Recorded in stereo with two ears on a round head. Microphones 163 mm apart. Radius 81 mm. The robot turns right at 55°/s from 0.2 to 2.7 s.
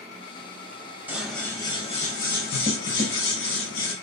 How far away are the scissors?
About 2.5 m.